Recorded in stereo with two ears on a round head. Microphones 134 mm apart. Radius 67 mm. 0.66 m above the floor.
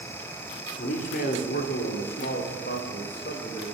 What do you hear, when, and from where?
0.8 s a man speaking: 55° left (ahead or behind), 1.3 m; by 3.6 s 70° left (ahead or behind), 2.5 m